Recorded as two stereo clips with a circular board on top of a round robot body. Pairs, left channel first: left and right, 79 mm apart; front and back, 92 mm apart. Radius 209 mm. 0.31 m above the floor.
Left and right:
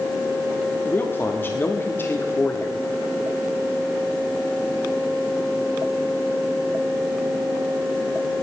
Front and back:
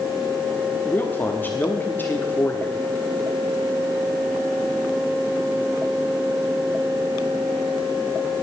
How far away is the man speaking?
About 1.5 m.